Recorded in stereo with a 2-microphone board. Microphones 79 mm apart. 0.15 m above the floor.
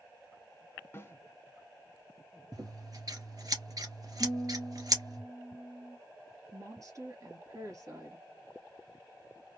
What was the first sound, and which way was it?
A snare drum, 30° left (ahead or behind).